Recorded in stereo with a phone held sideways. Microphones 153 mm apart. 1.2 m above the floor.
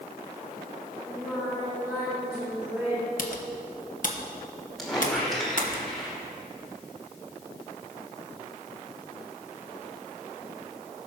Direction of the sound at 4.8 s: Centre (ahead or behind).